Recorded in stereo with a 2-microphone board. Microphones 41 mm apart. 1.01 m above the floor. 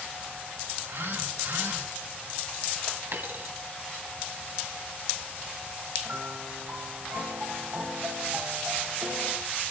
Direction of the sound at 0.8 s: 80° right.